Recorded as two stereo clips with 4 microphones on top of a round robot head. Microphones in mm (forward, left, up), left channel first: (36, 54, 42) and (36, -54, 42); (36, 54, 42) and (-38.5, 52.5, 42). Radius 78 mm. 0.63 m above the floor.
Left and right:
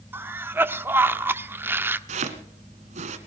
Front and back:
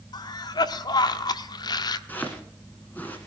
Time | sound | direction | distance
0.1 | a cough | 20° right | 1.1 m
2.1 | chopping | 75° right | 1.4 m